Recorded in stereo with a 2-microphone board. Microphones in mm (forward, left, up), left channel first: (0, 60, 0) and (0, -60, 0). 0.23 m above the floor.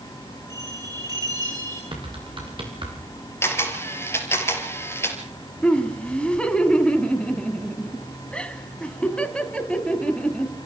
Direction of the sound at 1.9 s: 45° right (ahead or behind).